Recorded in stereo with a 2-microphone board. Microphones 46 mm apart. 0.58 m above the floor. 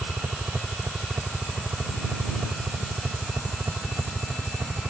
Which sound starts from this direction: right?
A helicopter, at 0.0 s.